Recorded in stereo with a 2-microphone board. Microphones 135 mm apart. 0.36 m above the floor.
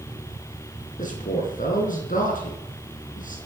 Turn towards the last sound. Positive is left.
turn(degrees=75)  # may be behind; listen again after turning